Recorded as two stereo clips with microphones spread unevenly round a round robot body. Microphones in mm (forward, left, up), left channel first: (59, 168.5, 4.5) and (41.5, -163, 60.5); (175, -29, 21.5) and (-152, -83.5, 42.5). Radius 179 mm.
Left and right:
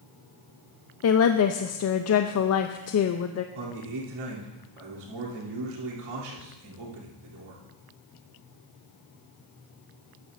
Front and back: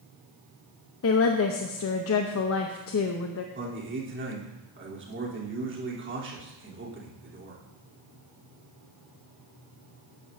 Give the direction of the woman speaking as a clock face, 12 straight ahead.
10 o'clock.